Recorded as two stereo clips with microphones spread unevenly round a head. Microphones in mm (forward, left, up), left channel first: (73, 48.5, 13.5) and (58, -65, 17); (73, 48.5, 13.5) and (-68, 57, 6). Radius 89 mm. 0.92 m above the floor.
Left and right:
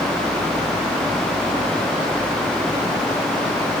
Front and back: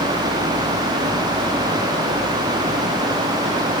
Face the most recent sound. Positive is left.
No sound to turn to.